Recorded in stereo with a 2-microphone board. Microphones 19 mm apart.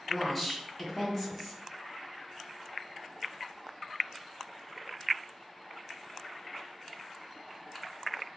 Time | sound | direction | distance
0.1 | a woman speaking | 5° right (ahead or behind) | 1.1 m